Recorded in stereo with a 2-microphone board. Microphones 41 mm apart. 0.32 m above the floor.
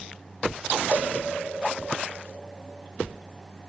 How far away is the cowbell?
About 3.5 m.